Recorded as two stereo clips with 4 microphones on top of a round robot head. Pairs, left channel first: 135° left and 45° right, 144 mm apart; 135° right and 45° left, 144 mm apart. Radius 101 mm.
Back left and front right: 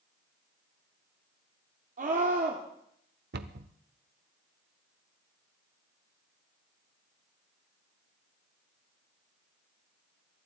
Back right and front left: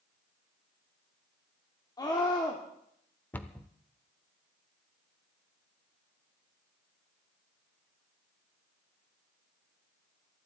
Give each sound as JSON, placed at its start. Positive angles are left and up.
{"t": 2.0, "sound": "a scream", "azimuth_deg": -75, "distance_m": 2.0}
{"t": 3.3, "sound": "a cupboard door", "azimuth_deg": -60, "distance_m": 0.9}